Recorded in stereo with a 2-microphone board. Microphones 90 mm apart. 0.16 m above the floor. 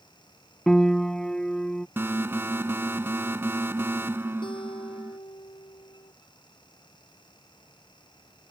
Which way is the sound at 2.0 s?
25° right (ahead or behind).